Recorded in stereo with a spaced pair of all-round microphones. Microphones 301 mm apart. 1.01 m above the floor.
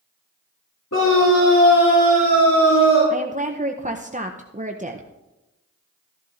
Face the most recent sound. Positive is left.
turn(degrees=-25)  # may be behind; listen again after turning